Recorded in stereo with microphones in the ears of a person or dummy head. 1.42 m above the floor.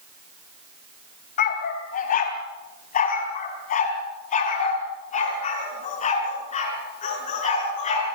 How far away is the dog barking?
About 3 m.